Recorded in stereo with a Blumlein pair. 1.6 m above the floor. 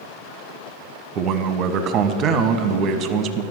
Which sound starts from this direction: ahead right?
A man speaking, at 1.1 s.